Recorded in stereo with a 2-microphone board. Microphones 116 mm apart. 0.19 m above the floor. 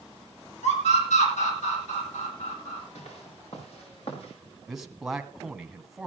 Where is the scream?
80° left, 7 m.